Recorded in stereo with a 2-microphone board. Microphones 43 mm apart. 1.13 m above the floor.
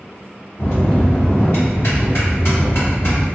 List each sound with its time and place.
0.6 s a bell: 80° left, 1.9 m